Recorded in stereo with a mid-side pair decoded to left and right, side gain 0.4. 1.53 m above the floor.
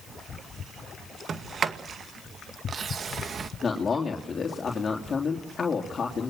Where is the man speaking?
40° left, 3.5 m.